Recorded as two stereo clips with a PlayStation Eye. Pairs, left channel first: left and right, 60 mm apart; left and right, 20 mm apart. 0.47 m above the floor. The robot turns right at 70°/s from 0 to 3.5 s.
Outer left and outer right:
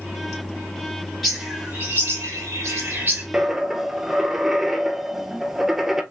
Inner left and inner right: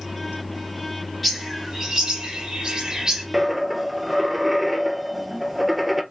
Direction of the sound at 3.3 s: 15° right (ahead or behind).